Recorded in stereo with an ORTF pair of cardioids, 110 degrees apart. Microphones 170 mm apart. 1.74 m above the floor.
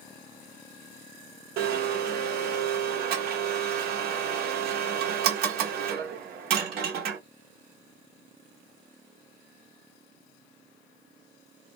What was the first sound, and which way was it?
A blender, 65° right.